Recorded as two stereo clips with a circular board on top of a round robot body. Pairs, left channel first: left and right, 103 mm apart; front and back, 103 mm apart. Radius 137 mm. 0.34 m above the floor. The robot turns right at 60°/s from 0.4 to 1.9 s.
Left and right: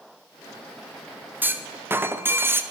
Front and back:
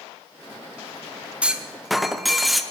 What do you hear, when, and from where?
1.4 s a clunk: 120° right, 0.9 m; by 2.6 s 90° right, 0.9 m